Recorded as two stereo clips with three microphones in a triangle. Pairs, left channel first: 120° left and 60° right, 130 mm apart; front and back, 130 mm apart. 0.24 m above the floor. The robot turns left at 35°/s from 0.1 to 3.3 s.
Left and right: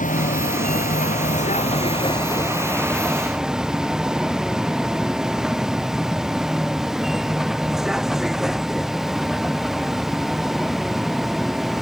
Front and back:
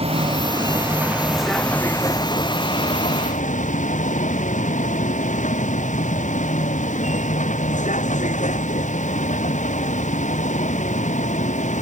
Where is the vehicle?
135° left; by 11.8 s 30° left.